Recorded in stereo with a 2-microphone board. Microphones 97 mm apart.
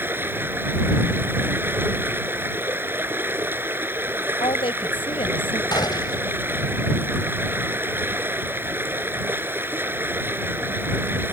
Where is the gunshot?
50° left (ahead or behind).